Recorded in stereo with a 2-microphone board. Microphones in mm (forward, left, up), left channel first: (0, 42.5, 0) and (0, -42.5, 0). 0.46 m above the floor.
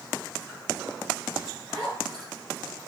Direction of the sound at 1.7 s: 15° left (ahead or behind).